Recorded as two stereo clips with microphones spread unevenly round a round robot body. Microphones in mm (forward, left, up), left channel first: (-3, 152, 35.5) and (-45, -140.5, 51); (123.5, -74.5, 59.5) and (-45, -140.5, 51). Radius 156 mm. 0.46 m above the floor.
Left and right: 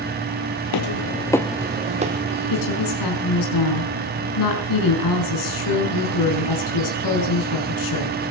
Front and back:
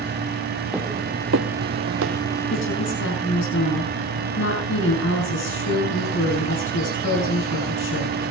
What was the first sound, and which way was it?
Footsteps, 110° left.